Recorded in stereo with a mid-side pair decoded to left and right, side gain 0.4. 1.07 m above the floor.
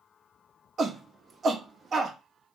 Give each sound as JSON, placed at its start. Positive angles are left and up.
{"t": 0.8, "sound": "a shout", "azimuth_deg": -50, "distance_m": 1.1}